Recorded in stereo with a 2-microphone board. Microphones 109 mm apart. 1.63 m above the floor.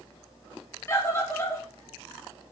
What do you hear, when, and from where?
0.9 s a scream: 25° left (ahead or behind), 3 m